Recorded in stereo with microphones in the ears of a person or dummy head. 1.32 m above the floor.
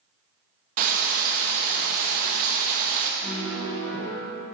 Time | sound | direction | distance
0.8 | frying | 40° right (ahead or behind) | 0.8 m
3.2 | a piano | 25° left (ahead or behind) | 1.5 m